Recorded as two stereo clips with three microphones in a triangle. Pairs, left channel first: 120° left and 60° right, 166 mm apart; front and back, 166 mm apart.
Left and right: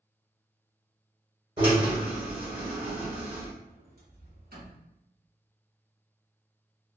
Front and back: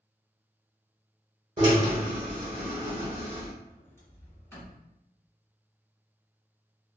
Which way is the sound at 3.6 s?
75° right.